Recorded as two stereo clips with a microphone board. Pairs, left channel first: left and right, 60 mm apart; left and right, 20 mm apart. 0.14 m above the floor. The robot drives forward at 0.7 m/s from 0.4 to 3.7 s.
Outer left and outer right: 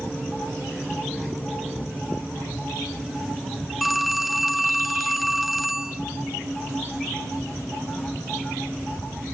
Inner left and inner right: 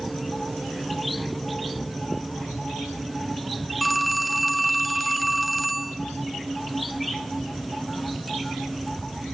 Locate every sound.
3.8 s a phone ringing: centre (ahead or behind), 0.6 m